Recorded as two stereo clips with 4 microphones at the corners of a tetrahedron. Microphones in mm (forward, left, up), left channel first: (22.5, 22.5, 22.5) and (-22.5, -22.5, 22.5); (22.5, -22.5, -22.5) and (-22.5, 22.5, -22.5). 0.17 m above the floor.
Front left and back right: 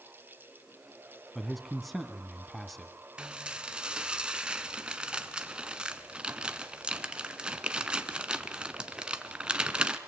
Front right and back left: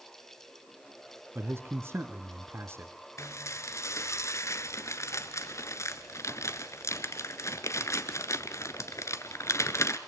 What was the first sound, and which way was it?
A man speaking, 135° left.